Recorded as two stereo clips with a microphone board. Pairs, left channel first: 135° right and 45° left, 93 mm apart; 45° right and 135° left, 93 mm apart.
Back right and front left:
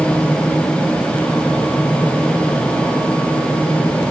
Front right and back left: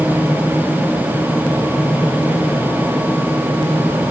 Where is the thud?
No thud in this recording.